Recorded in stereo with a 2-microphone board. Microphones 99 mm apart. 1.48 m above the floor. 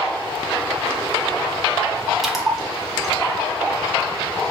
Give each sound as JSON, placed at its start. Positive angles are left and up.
{"t": 2.2, "sound": "a splash", "side_deg": 0, "distance_m": 1.1}